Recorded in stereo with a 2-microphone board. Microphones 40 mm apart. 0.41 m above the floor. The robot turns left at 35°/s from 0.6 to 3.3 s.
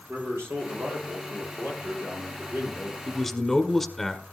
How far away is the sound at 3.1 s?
About 1.4 m.